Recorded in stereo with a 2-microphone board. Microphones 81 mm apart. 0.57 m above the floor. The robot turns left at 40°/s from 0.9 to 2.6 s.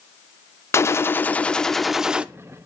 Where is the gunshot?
40° left, 0.5 m; by 2.3 s 15° right, 0.5 m.